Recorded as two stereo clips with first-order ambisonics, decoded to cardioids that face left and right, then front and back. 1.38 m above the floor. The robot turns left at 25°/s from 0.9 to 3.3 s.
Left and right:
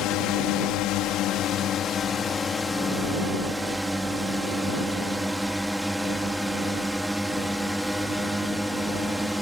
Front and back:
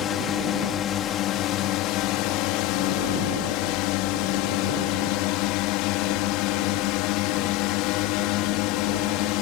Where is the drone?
55° left; by 9.4 s 5° right.